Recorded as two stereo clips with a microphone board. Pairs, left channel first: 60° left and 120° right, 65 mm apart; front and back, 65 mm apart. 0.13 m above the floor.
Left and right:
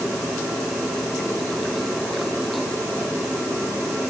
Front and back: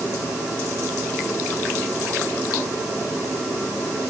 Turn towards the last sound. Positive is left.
No sound to turn to.